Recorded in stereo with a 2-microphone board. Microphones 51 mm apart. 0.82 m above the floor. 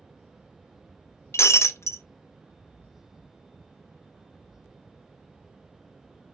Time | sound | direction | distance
1.3 | breaking glass | 60° left (ahead or behind) | 0.6 m